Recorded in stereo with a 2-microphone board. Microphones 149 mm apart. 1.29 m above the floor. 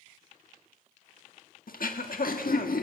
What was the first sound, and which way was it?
Throat clearing, 75° left (ahead or behind).